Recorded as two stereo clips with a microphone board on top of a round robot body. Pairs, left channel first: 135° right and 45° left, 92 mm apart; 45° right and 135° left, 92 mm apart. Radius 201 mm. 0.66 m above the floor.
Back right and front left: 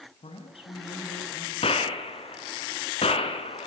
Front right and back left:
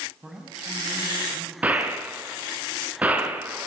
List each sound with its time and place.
0.2 s a man speaking: 140° right, 6 m
1.6 s a gunshot: 150° right, 2.5 m